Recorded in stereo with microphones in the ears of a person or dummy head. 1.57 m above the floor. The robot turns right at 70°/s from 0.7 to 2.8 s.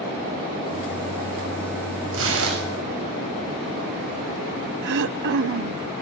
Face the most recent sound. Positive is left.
turn(degrees=-60)  # may be behind; listen again after turning